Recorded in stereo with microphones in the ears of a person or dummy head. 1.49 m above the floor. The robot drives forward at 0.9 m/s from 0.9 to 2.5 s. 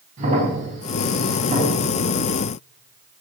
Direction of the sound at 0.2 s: 45° right (ahead or behind).